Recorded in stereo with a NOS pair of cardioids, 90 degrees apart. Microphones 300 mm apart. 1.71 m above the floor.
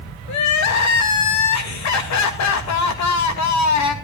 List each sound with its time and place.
0.3 s crying: 70° left, 2.5 m